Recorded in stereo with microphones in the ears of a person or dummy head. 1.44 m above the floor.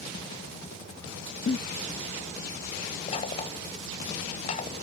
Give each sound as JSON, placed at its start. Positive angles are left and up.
{"t": 1.5, "sound": "a giggle", "side_deg": 40}
{"t": 3.1, "sound": "knocking", "side_deg": 40}